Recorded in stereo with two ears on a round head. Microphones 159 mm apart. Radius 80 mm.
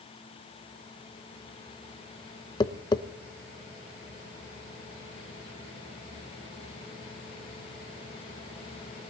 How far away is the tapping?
About 0.7 m.